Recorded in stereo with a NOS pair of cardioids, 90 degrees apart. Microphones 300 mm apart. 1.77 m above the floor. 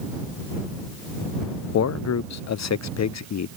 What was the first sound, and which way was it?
A man speaking, 60° left.